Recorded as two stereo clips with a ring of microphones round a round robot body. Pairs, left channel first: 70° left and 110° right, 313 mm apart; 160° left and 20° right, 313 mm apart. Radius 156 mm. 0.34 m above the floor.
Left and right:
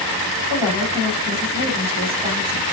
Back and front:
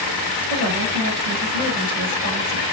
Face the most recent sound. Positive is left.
turn(degrees=-30)